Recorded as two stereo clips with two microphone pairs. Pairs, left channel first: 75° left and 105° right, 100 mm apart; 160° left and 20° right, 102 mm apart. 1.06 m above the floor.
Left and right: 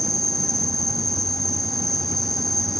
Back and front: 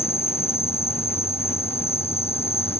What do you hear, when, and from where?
0.0 s an insect: 165° left